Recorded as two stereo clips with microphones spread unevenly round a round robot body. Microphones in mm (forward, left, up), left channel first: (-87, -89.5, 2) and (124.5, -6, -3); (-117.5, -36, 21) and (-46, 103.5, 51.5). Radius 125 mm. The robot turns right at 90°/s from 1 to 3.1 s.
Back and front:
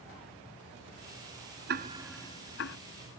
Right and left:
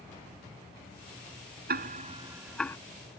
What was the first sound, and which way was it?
Ticking, 70° left.